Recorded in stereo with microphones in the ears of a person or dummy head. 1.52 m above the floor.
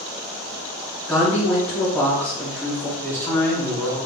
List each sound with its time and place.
1.1 s a woman speaking: 15° left (ahead or behind), 1.3 m
3.0 s a man speaking: 15° left (ahead or behind), 0.7 m